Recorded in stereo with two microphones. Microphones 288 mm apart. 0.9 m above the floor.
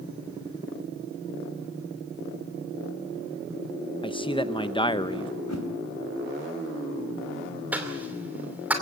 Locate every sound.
4.0 s a man speaking: 15° left (ahead or behind), 1.0 m
5.5 s a whoosh: 65° left (ahead or behind), 3 m
7.7 s a cough: 5° right (ahead or behind), 2.5 m